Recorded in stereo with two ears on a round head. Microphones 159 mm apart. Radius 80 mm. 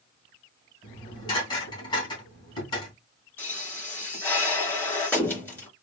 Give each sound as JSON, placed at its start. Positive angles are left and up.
{"t": 0.8, "sound": "dishes clattering", "side_deg": 25, "distance_m": 3.0}
{"t": 3.4, "sound": "a pop", "side_deg": 10, "distance_m": 4.0}